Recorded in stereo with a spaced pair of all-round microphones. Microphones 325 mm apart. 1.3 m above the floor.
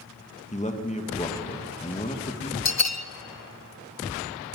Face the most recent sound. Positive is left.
turn(degrees=55)  # may be behind; listen again after turning